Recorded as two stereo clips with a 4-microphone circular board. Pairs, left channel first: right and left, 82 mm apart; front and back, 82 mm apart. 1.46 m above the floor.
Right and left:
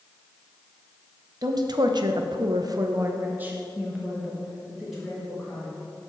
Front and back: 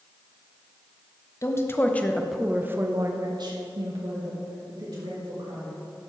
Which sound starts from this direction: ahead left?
A woman speaking, at 1.4 s.